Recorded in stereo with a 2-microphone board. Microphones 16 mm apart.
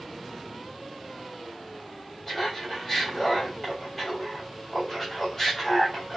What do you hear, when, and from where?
2.3 s laughter: 30° left (ahead or behind), 1.6 m